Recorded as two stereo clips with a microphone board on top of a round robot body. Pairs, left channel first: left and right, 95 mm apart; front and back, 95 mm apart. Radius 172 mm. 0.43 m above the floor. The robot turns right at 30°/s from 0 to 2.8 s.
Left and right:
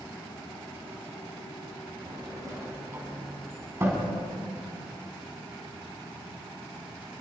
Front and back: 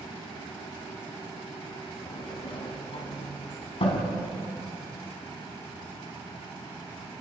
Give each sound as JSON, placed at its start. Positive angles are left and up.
{"t": 2.1, "sound": "a sliding door", "azimuth_deg": -50, "distance_m": 4.5}